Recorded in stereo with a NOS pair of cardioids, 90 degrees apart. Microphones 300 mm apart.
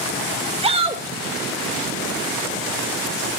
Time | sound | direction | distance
0.6 | a shout | 20° right | 1.9 m